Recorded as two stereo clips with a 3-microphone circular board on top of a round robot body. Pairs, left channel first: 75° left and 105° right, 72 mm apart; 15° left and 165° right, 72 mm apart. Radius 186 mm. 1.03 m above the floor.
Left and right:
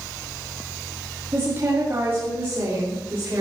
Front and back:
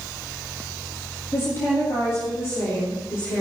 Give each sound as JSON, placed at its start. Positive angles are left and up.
{"t": 1.3, "sound": "a woman speaking", "azimuth_deg": -45, "distance_m": 2.5}